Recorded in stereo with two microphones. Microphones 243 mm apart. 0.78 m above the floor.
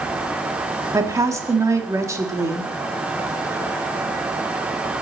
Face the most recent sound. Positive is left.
turn(degrees=-10)  # may be behind; listen again after turning